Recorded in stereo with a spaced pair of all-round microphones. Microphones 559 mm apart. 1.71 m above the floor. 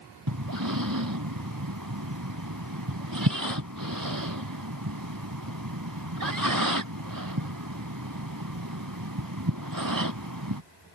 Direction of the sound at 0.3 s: 35° right (ahead or behind).